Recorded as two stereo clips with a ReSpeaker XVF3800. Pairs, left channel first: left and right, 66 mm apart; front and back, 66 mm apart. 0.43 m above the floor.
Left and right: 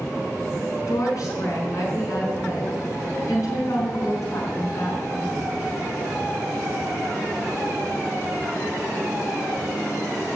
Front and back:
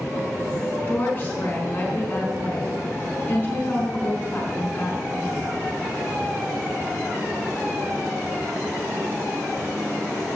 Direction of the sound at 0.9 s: 60° left.